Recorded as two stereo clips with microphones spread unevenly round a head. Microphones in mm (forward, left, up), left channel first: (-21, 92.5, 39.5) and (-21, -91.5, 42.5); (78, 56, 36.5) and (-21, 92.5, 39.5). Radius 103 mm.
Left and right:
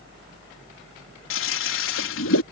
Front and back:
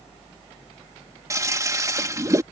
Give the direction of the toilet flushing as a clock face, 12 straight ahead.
9 o'clock.